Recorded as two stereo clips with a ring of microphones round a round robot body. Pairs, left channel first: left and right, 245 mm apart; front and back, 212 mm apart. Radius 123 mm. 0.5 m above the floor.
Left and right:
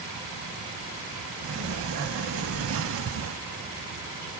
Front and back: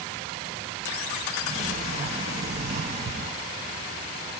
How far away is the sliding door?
About 0.5 m.